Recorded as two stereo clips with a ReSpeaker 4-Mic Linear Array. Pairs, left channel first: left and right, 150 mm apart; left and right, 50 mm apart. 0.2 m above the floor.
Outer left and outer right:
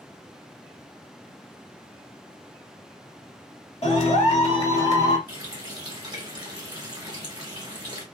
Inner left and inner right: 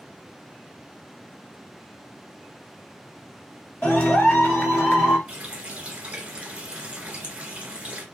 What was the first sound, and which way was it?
A clap, 40° left (ahead or behind).